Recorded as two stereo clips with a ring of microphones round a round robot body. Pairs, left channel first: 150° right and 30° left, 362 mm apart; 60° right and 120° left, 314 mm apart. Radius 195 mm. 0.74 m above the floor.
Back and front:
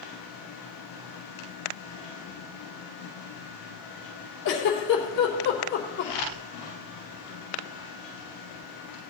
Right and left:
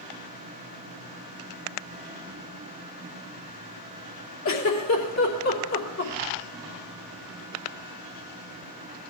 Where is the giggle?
90° right, 3 m.